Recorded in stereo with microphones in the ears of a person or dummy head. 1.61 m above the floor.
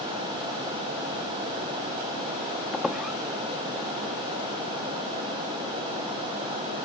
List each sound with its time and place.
2.7 s a squeak: centre (ahead or behind)